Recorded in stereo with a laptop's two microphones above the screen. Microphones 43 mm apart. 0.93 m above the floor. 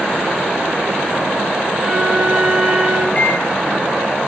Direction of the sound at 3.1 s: 35° left (ahead or behind).